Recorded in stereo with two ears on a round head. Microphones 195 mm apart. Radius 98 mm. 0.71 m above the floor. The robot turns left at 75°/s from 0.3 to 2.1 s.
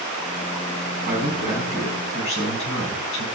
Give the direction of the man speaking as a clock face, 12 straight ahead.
4 o'clock.